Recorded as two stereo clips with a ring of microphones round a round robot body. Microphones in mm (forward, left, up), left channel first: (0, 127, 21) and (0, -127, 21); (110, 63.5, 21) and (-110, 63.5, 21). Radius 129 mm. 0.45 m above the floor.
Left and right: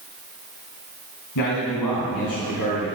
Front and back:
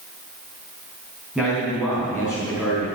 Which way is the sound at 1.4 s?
95° left.